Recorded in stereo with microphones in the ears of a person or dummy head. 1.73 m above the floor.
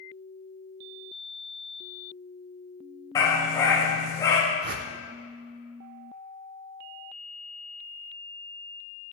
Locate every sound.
3.1 s a dog barking: 15° left (ahead or behind), 3 m
4.6 s a whoosh: 55° right (ahead or behind), 0.8 m